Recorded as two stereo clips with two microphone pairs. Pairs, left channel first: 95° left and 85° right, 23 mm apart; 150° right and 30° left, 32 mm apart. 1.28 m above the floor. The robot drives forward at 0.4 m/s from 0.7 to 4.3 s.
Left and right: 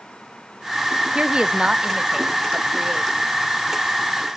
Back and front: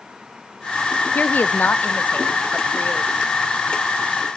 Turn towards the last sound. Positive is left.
turn(degrees=-160)